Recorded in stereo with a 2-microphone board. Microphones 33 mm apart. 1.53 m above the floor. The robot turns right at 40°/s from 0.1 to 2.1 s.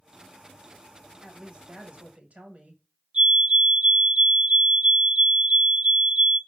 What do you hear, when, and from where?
1.2 s a woman speaking: 165° right, 1.7 m; by 2.8 s 130° right, 1.7 m
3.1 s a fire alarm: 35° right (ahead or behind), 3 m